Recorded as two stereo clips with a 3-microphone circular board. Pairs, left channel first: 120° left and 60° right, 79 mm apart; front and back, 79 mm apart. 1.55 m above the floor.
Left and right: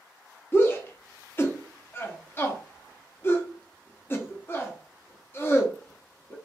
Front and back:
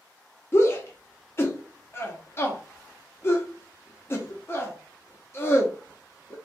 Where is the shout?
55° left, 0.8 m.